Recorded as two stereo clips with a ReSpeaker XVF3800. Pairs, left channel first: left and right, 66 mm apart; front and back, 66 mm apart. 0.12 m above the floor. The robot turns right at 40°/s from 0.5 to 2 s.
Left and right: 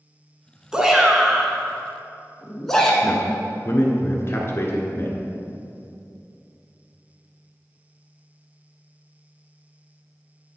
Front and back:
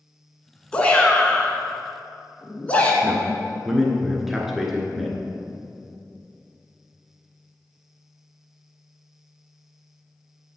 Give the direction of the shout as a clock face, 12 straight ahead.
1 o'clock.